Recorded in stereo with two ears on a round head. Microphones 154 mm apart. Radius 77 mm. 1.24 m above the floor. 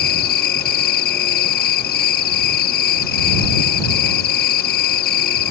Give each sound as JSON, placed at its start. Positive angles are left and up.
{"t": 0.0, "sound": "an insect", "side_deg": 55}